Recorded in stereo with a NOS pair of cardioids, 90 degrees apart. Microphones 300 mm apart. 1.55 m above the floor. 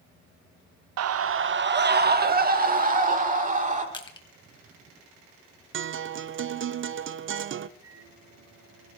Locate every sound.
1.0 s a scream: 60° right, 0.9 m; by 3.8 s 25° right, 5 m
3.9 s crushing: 15° left, 2.5 m
5.7 s a guitar: 40° right, 0.7 m
7.8 s a microwave: 50° right, 8 m